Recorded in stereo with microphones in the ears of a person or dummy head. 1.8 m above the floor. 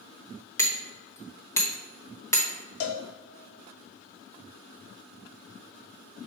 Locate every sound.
0.6 s hammering: 15° left (ahead or behind), 1.0 m
2.8 s a cowbell: 55° left (ahead or behind), 0.7 m